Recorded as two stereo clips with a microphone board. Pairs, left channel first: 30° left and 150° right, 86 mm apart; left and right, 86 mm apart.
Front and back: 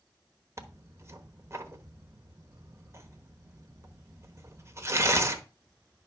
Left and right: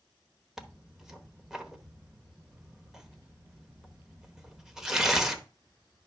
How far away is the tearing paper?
About 1.0 m.